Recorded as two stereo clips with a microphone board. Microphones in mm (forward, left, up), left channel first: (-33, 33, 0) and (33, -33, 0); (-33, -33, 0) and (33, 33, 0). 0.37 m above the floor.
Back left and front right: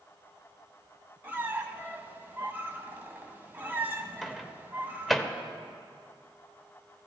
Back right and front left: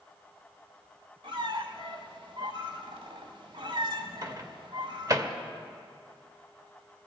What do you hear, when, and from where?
1.2 s a squeak: 20° left, 1.2 m
4.2 s a microwave: 45° left, 0.8 m